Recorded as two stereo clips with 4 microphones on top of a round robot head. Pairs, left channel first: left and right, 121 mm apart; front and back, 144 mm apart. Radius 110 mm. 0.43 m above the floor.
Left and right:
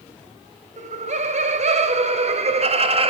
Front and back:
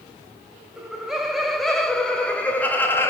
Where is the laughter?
95° right, 3.5 m; by 3.1 s 70° right, 2.5 m.